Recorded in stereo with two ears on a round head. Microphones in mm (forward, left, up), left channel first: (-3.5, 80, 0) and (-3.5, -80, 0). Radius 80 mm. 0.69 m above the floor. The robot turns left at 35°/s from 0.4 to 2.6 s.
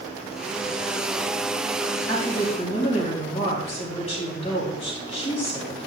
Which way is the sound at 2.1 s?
15° left (ahead or behind).